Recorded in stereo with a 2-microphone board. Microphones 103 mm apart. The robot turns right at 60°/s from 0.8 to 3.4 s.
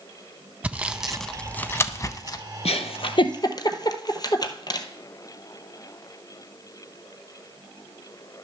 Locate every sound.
0.6 s sawing: 15° right (ahead or behind), 0.5 m; by 2.4 s 40° left (ahead or behind), 0.5 m
2.6 s a giggle: 85° left, 0.8 m; by 4.9 s 40° left (ahead or behind), 0.8 m